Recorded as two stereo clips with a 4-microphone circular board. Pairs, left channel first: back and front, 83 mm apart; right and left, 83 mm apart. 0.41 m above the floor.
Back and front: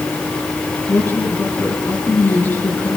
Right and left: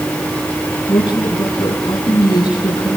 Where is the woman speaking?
120° right, 4.5 m.